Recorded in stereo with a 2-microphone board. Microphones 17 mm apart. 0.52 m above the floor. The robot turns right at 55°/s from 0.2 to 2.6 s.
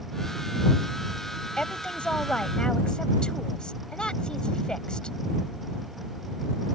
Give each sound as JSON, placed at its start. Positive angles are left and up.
{"t": 1.6, "sound": "a woman speaking", "azimuth_deg": 65}